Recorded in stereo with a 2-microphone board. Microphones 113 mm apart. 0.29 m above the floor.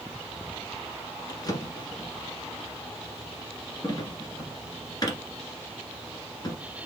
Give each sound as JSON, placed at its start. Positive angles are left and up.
{"t": 1.3, "sound": "a drawer", "side_deg": 35, "distance_m": 1.8}